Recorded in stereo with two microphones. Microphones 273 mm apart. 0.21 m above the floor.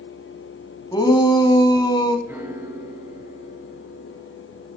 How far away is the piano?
About 3.5 m.